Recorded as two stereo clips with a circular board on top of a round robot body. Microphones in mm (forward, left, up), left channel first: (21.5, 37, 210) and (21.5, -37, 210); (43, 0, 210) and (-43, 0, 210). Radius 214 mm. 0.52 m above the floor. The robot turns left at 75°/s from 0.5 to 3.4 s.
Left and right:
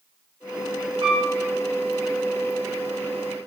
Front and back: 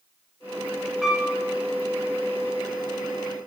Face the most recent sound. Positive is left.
turn(degrees=90)